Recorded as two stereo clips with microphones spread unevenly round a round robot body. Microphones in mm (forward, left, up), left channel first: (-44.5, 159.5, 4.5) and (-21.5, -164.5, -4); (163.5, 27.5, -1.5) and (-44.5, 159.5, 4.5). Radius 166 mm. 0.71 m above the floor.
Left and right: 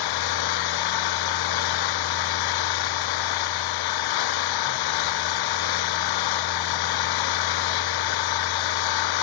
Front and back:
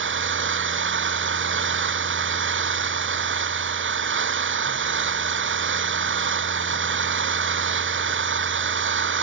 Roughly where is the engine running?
Left.